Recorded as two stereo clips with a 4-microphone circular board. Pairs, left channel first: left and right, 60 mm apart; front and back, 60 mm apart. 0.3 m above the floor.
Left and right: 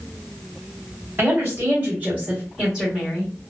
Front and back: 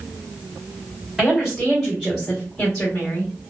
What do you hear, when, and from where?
1.2 s a woman speaking: 105° right, 1.7 m; by 3.3 s 10° left, 1.4 m